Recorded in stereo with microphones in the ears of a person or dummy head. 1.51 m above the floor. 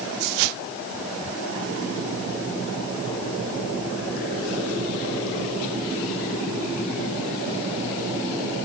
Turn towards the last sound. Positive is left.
No sound to turn to.